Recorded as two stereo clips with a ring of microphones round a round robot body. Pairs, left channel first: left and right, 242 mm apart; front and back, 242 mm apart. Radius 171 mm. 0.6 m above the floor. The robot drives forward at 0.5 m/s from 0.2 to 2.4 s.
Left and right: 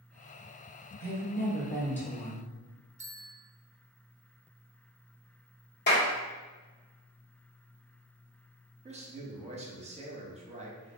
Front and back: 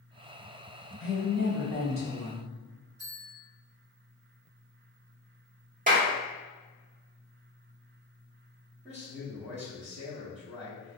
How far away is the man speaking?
About 0.8 m.